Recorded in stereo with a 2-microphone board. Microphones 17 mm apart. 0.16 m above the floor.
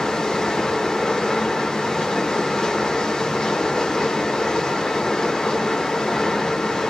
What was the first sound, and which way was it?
Running water, 35° left (ahead or behind).